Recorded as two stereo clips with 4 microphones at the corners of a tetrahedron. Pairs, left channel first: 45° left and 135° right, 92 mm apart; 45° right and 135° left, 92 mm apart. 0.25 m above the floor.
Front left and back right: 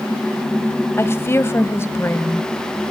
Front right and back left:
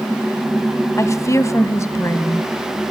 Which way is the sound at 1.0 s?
5° right.